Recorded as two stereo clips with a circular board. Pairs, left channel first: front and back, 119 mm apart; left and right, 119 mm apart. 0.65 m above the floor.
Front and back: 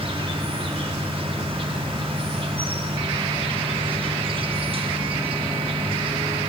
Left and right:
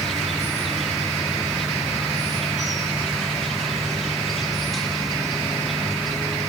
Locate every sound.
0.0 s an insect: straight behind, 1.0 m